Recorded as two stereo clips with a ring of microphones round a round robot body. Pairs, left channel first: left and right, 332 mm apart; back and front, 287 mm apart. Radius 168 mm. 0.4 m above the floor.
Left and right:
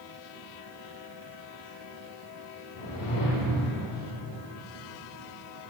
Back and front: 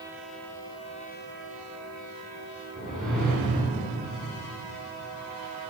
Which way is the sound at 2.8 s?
90° left.